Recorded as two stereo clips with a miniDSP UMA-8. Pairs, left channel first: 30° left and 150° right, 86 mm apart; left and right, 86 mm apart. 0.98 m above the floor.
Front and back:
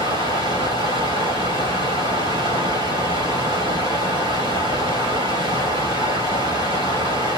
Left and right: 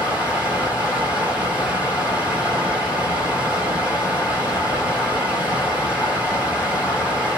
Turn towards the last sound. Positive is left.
turn(degrees=-160)